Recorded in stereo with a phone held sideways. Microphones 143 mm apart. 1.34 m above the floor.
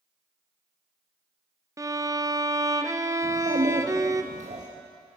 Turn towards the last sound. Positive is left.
turn(degrees=-60)  # may be behind; listen again after turning